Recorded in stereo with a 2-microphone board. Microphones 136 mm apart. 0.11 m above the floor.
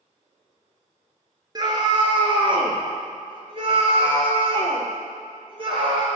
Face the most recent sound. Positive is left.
turn(degrees=-40)  # may be behind; listen again after turning